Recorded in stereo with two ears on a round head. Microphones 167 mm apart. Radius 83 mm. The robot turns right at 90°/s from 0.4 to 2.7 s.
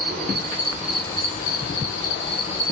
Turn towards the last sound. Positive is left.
turn(degrees=160)